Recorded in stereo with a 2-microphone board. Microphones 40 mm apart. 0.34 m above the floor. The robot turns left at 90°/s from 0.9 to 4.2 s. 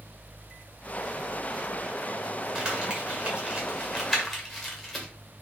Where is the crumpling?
15° right (ahead or behind), 1.5 m; by 5.0 s centre (ahead or behind), 1.5 m.